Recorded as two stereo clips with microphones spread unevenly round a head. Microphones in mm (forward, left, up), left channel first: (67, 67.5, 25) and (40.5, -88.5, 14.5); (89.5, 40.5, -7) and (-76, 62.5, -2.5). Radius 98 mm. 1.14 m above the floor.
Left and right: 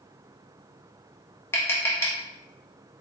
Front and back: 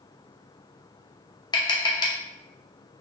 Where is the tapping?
30° left, 0.7 m.